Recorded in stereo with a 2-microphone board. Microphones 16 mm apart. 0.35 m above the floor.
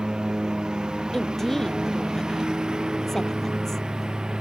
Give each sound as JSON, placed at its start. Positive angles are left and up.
{"t": 0.0, "sound": "a lawn mower", "side_deg": -70}
{"t": 1.1, "sound": "a woman speaking", "side_deg": 25}